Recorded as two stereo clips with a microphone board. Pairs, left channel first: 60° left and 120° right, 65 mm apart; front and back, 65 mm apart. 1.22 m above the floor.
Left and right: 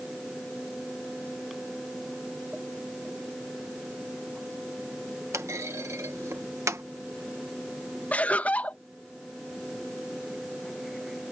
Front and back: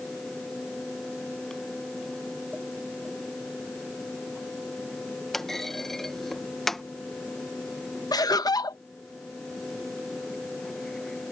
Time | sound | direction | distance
5.3 | a clunk | 85° right | ?
8.1 | laughter | 5° right | ?